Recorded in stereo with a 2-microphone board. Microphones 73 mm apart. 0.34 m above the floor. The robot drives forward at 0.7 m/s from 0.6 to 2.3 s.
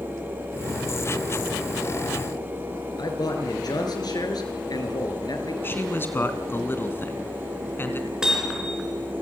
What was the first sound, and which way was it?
A man speaking, 65° left (ahead or behind).